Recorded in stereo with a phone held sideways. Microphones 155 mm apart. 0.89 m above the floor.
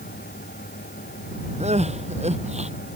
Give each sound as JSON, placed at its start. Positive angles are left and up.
{"t": 0.0, "sound": "a fan", "side_deg": 75}
{"t": 1.6, "sound": "crying", "side_deg": -45}